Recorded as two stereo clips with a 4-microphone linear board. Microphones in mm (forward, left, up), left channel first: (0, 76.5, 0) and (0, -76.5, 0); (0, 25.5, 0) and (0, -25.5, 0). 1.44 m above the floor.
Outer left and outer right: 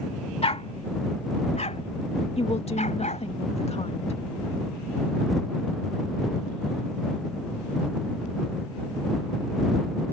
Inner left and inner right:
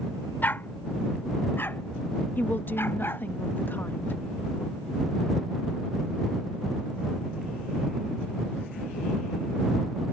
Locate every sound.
0.4 s a dog barking: 45° left (ahead or behind); by 3.3 s 55° left (ahead or behind)
2.4 s a woman speaking: 45° left (ahead or behind)